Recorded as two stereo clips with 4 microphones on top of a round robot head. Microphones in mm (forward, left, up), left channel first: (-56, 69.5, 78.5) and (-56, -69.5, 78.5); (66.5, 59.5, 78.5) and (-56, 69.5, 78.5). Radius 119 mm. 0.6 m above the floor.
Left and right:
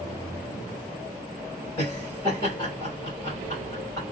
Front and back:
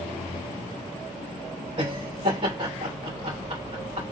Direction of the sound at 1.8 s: 145° left.